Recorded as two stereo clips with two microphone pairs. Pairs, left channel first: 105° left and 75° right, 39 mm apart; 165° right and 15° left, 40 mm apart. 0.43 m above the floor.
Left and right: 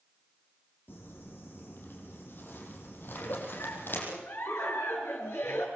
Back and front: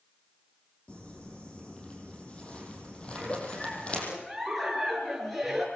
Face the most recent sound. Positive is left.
turn(degrees=105)